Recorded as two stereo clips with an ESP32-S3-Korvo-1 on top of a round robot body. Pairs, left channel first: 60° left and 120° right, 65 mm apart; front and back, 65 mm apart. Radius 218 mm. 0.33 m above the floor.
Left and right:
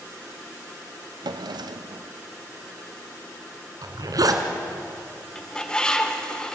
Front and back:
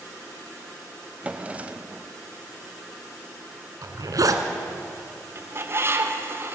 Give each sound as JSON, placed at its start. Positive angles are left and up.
{"t": 1.2, "sound": "a drawer", "azimuth_deg": -110, "distance_m": 0.7}
{"t": 3.8, "sound": "a zipper", "azimuth_deg": -150, "distance_m": 1.9}
{"t": 5.3, "sound": "a bird", "azimuth_deg": 135, "distance_m": 2.0}